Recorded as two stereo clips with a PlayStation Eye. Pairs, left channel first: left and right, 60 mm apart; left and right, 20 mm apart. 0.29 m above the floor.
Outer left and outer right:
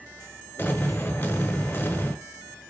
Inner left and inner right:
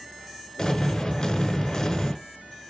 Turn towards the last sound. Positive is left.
turn(degrees=40)  # may be behind; listen again after turning